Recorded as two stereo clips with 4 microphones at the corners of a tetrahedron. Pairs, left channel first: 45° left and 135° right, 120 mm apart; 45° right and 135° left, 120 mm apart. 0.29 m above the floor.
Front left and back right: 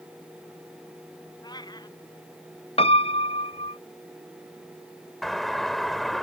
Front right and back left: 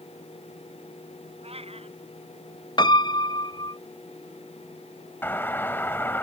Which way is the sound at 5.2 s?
40° right.